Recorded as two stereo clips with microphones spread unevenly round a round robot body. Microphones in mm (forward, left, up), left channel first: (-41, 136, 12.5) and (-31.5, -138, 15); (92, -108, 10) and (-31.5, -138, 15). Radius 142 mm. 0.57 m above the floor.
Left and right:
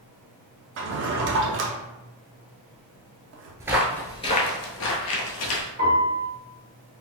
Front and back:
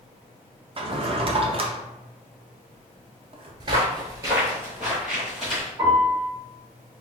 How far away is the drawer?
About 0.6 m.